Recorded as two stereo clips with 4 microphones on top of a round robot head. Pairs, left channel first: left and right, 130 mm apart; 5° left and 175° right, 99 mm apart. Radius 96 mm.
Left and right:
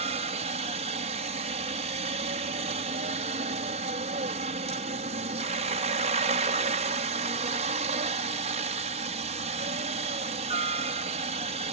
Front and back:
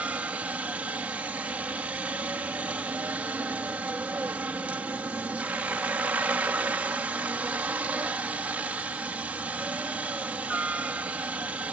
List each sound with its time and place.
0.0 s a helicopter: 100° right